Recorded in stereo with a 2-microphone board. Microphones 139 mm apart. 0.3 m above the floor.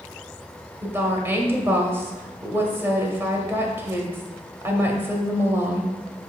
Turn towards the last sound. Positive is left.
turn(degrees=-15)  # may be behind; listen again after turning